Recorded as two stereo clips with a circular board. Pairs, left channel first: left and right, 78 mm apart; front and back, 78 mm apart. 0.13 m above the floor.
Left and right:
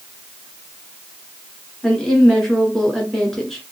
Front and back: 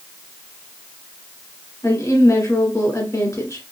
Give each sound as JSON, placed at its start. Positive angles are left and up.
{"t": 1.8, "sound": "a woman speaking", "azimuth_deg": 5, "distance_m": 1.6}